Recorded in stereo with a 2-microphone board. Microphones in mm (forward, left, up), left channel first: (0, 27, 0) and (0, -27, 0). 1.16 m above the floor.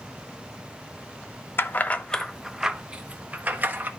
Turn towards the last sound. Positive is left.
turn(degrees=-35)  # may be behind; listen again after turning